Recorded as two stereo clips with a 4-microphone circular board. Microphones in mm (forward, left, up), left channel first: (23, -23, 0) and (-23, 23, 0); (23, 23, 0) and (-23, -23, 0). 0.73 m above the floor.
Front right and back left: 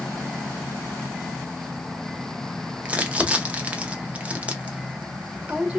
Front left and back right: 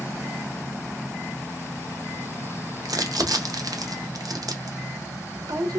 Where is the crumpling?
155° right, 0.7 m.